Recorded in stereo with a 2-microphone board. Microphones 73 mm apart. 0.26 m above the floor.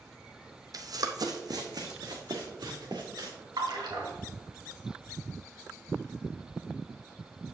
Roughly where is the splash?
Right.